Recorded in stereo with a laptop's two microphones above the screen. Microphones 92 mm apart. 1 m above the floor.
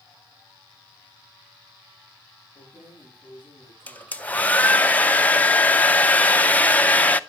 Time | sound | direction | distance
2.5 | keys jangling | 15° right (ahead or behind) | 6 m
3.9 | a hair dryer | 20° left (ahead or behind) | 0.5 m